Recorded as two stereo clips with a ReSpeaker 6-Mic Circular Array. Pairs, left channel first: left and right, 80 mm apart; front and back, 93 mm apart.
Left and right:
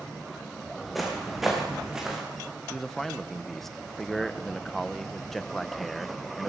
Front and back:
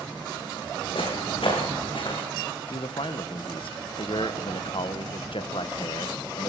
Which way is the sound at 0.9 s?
Straight ahead.